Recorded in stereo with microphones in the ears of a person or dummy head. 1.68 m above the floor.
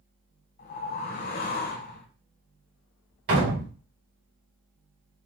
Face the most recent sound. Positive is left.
turn(degrees=-60)  # may be behind; listen again after turning